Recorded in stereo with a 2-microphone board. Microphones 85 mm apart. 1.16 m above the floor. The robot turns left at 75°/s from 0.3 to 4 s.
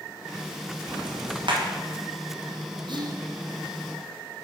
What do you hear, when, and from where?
0.9 s ticking: 50° right (ahead or behind), 1.1 m; by 1.6 s 65° right (ahead or behind), 1.1 m
2.9 s whispering: 65° right (ahead or behind), 0.7 m; by 3.2 s 45° right (ahead or behind), 0.7 m